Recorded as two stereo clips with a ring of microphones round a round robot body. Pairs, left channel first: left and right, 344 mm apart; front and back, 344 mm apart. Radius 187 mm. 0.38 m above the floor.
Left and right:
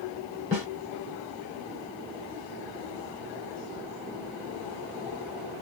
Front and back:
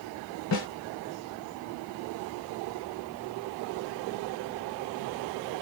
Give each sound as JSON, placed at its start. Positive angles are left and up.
{"t": 0.5, "sound": "a snare drum", "azimuth_deg": 45, "distance_m": 1.9}